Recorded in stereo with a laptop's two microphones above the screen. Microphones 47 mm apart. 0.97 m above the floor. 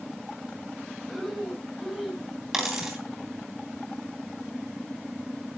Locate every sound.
1.1 s breathing: 5° left (ahead or behind), 6 m
2.5 s a dropped coin: 10° right (ahead or behind), 2.5 m